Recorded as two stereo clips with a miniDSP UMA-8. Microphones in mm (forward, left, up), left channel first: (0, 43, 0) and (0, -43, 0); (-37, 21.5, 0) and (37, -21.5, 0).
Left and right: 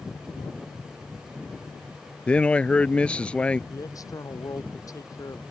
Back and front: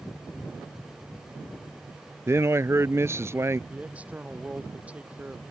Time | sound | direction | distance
2.3 | a man speaking | 15° left | ?
3.7 | a man speaking | 45° left | ?